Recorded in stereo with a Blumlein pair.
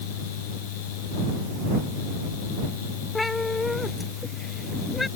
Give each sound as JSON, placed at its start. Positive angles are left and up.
{"t": 0.0, "sound": "a fan", "azimuth_deg": 50}
{"t": 3.1, "sound": "a cat meowing", "azimuth_deg": 10}